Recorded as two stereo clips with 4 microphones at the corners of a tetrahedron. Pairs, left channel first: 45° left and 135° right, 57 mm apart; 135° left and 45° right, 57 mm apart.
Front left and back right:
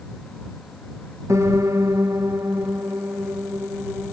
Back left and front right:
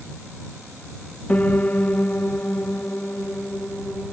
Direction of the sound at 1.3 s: 160° right.